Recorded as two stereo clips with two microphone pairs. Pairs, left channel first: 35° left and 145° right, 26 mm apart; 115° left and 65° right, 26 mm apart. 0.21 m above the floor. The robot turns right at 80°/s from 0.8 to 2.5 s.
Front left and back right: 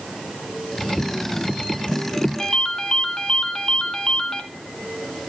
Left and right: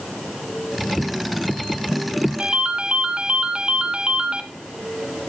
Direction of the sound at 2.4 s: 30° right.